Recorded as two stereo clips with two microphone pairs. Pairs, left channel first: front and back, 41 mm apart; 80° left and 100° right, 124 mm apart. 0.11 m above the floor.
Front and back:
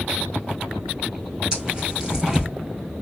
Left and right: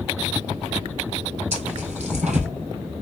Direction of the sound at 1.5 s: 110° right.